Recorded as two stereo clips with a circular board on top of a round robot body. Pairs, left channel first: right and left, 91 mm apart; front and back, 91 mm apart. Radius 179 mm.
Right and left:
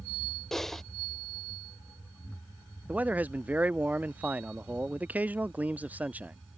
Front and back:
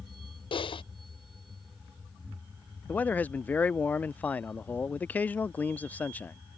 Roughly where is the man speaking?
Ahead left.